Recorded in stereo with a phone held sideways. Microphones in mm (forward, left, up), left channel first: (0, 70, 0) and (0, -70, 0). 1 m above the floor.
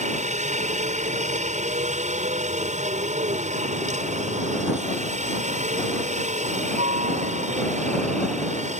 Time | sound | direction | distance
0.0 | a helicopter | 60° right (ahead or behind) | ?